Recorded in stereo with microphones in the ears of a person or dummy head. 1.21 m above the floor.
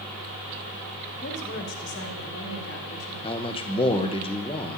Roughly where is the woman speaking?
Left.